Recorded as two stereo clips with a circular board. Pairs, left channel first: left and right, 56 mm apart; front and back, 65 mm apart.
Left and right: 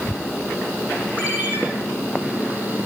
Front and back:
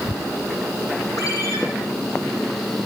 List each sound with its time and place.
1.2 s a ringtone: 30° right, 6.5 m